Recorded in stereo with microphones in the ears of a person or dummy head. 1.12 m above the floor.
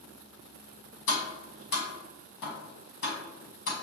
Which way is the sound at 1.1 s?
70° left (ahead or behind).